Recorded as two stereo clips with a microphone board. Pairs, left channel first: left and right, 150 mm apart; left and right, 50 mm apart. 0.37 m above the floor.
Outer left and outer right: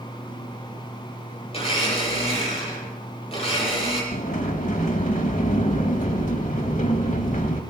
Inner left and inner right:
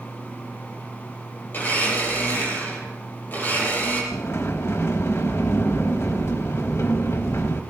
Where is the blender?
40° left (ahead or behind), 8.5 m.